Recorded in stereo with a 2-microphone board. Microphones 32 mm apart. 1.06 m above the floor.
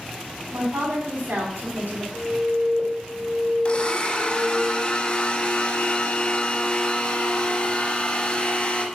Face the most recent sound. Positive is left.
turn(degrees=35)  # may be behind; listen again after turning